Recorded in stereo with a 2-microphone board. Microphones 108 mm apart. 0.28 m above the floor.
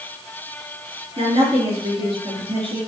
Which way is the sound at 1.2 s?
60° right (ahead or behind).